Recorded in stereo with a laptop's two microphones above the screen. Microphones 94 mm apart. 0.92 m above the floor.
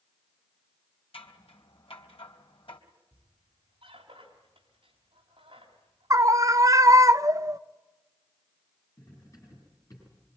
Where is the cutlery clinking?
35° left (ahead or behind), 8.5 m.